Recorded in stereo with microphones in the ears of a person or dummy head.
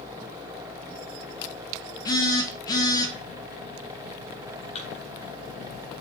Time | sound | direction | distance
2.0 | a phone buzzing | 25° left (ahead or behind) | 2 m
4.8 | a thud | 35° left (ahead or behind) | 3.5 m